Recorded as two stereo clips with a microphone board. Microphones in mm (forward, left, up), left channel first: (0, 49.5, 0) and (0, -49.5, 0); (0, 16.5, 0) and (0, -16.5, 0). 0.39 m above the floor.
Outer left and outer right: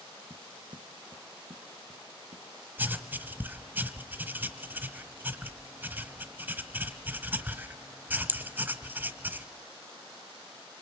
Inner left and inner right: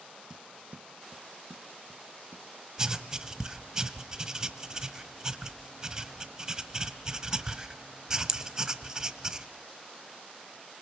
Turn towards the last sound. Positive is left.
turn(degrees=-20)  # may be behind; listen again after turning